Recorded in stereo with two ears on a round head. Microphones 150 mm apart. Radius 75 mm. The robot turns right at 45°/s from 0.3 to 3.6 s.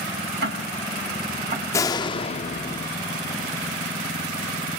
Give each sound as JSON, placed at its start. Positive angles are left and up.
{"t": 0.4, "sound": "ticking", "side_deg": -80, "distance_m": 4.5}
{"t": 1.7, "sound": "a door slam", "azimuth_deg": 25, "distance_m": 0.8}